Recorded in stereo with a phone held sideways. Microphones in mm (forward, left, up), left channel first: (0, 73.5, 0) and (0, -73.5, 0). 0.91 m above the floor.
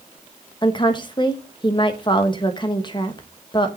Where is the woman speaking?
30° left (ahead or behind), 1.2 m.